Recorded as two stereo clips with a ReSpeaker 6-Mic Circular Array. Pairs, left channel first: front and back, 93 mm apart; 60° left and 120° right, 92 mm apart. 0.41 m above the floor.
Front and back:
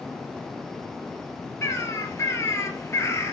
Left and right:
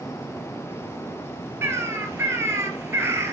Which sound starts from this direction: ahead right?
A bird, at 1.6 s.